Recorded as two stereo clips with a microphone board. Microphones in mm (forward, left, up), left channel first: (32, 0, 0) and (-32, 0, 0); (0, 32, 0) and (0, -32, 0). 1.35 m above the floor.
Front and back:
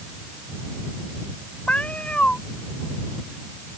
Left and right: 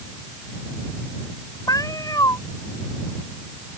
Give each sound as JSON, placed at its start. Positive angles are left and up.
{"t": 1.7, "sound": "a cat meowing", "azimuth_deg": 70}